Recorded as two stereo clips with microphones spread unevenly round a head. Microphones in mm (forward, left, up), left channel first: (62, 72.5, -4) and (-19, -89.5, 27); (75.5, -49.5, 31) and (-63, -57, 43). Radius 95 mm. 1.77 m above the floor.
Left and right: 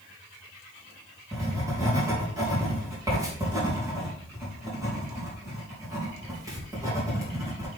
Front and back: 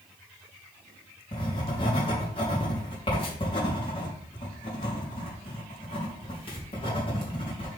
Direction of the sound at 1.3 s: 45° right.